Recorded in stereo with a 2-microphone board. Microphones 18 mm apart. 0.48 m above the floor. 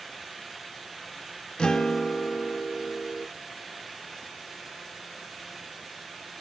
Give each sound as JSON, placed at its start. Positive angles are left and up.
{"t": 1.6, "sound": "a guitar", "side_deg": 40, "distance_m": 0.7}